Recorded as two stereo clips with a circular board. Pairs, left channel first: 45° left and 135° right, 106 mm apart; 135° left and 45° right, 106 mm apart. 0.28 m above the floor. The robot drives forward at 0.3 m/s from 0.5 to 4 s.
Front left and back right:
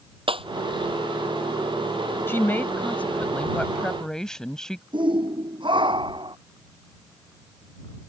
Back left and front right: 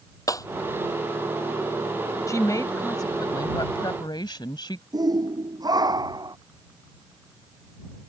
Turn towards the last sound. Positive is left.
turn(degrees=-95)